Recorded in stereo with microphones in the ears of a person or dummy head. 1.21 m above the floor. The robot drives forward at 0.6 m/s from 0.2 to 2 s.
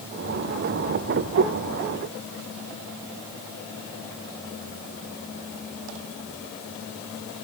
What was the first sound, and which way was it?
Only background noise.